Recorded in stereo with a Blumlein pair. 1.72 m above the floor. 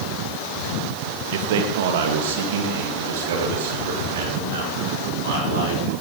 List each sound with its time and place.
1.3 s a man speaking: 55° right, 1.3 m